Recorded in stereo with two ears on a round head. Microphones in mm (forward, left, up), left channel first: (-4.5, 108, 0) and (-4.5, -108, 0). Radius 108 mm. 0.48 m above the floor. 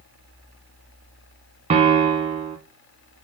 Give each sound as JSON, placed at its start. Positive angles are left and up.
{"t": 1.7, "sound": "a piano", "side_deg": -25, "distance_m": 0.9}